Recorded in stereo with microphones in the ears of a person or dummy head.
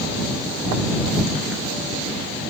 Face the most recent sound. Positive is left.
No sound to turn to.